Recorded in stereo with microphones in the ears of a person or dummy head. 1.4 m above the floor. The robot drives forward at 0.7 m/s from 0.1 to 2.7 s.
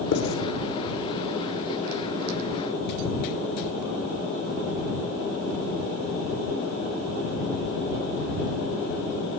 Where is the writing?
75° left (ahead or behind), 8 m.